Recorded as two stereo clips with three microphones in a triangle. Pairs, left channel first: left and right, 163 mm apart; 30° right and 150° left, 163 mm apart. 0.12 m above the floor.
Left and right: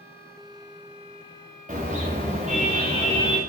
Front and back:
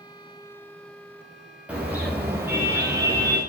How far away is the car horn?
About 8.5 m.